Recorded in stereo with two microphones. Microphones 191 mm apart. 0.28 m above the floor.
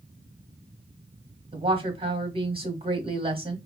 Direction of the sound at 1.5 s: 30° right (ahead or behind).